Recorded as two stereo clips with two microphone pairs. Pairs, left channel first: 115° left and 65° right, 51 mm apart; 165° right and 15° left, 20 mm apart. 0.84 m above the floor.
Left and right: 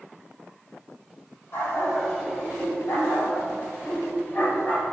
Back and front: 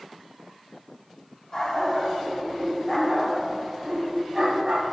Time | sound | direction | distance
1.5 | a dog barking | 135° left | 3 m